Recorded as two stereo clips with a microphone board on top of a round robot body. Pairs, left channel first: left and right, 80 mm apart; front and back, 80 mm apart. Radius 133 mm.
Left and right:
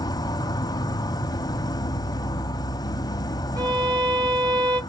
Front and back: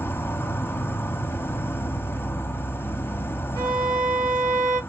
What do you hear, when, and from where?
0.0 s an insect: 60° left, 1.1 m
3.6 s a violin: 140° right, 1.8 m